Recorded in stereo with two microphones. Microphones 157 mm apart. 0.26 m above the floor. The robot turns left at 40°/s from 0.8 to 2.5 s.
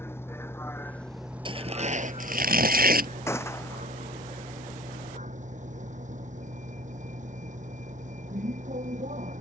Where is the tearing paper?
35° right; by 3.1 s 75° right.